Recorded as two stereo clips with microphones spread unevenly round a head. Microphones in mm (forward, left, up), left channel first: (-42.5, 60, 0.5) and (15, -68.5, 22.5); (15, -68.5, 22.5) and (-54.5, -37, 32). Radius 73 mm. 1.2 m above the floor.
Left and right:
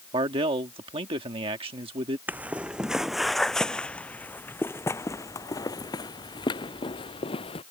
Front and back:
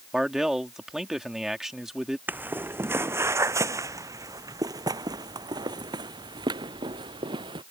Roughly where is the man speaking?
Behind right.